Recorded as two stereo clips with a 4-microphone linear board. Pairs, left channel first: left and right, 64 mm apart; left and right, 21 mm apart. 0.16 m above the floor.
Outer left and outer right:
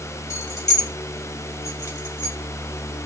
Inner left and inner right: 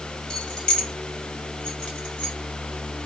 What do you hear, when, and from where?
0.3 s keys jangling: 45° left (ahead or behind), 1.0 m; by 2.4 s 40° left (ahead or behind), 1.5 m